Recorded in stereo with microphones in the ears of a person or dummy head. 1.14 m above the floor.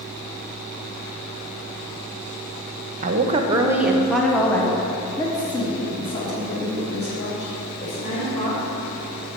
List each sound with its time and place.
3.0 s a woman speaking: 45° right (ahead or behind), 1.0 m; by 8.7 s 35° left (ahead or behind), 5 m